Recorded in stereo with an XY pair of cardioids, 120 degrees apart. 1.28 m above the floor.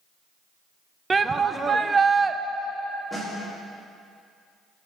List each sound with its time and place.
1.1 s a shout: 25° right, 0.6 m
3.1 s a snare drum: 5° right, 2.5 m